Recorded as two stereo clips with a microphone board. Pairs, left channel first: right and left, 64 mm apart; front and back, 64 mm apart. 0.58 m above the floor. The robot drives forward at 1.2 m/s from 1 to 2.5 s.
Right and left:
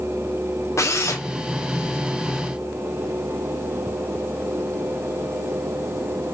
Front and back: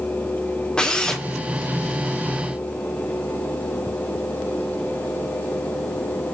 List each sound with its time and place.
0.8 s a drill: 75° right, 1.8 m; by 1.2 s 85° right, 1.7 m